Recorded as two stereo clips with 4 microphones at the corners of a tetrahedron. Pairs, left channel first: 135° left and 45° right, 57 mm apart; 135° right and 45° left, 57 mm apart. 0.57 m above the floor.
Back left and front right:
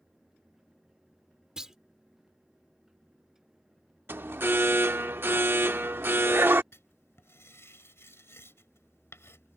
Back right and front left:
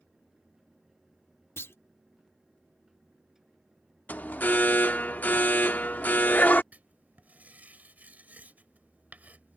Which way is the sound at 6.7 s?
100° left.